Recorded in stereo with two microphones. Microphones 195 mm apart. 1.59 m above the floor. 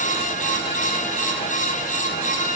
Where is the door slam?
No door slam in this recording.